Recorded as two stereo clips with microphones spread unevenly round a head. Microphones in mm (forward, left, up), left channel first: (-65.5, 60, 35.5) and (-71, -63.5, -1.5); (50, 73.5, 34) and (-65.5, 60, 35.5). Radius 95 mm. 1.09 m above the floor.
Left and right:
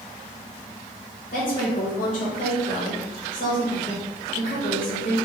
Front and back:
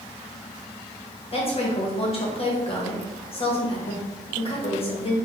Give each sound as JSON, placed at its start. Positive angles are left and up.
{"t": 1.3, "sound": "a woman speaking", "azimuth_deg": 40, "distance_m": 1.4}